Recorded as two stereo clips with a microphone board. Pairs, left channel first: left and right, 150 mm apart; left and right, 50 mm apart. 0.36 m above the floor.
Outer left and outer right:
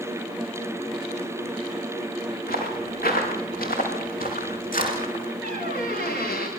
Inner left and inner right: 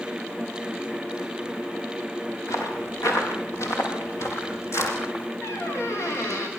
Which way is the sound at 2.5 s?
85° left.